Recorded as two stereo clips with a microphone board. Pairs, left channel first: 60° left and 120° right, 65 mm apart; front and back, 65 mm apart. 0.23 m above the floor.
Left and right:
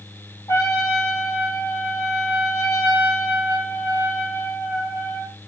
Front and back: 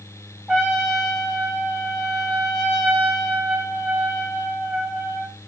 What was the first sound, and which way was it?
A trumpet, 95° left.